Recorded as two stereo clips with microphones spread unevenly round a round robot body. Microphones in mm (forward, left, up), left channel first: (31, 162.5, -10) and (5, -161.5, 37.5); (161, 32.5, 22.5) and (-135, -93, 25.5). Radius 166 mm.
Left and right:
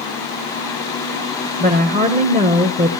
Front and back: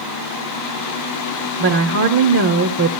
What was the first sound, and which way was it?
A woman speaking, 160° right.